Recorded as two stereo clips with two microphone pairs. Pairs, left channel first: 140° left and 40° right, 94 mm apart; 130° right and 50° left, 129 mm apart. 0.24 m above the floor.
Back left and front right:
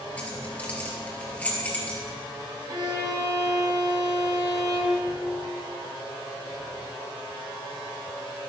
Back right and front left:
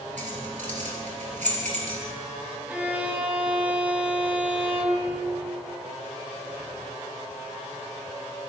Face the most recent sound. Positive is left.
turn(degrees=-25)